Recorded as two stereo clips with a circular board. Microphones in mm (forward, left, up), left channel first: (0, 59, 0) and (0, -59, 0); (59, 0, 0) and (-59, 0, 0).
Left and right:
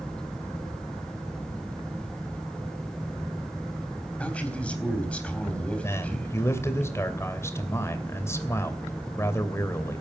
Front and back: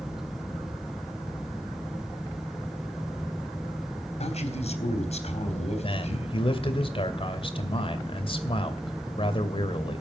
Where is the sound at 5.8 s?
25° left, 2.5 m.